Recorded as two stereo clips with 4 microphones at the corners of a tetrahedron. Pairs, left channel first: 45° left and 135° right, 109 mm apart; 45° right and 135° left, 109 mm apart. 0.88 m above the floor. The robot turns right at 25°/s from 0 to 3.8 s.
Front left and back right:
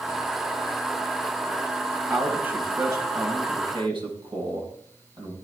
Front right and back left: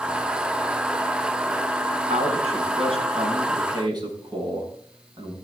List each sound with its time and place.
2.1 s a man speaking: 140° left, 6 m; by 5.3 s 175° right, 6 m